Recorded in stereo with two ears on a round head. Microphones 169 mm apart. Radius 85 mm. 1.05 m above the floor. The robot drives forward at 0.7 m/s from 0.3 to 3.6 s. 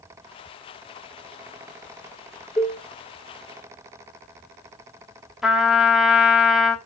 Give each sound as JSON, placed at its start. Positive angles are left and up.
{"t": 2.6, "sound": "a cowbell", "side_deg": 0, "distance_m": 1.6}
{"t": 5.4, "sound": "a trumpet", "side_deg": 0, "distance_m": 1.1}